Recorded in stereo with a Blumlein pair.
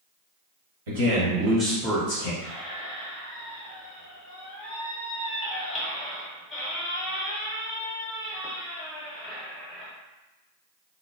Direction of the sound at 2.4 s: 10° left.